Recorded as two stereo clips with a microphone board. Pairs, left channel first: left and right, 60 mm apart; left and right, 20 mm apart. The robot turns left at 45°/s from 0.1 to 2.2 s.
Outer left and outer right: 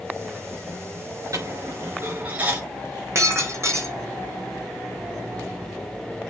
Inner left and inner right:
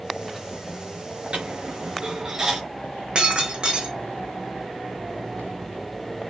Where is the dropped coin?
65° right (ahead or behind), 5 m; by 2.6 s 25° right (ahead or behind), 5 m.